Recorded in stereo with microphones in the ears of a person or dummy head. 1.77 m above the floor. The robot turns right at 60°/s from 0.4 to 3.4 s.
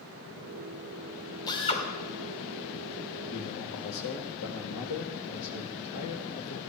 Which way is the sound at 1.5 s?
20° left (ahead or behind).